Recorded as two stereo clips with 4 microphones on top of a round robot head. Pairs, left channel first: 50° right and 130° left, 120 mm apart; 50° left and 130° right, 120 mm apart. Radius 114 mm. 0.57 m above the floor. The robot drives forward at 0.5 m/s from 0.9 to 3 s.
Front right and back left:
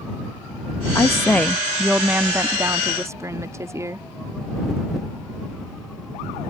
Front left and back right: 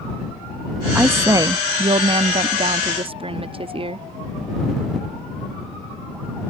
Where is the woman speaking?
70° right; by 4.1 s 165° right.